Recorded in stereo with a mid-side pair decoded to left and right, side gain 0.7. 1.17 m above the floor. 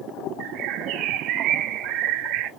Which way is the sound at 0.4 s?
55° right.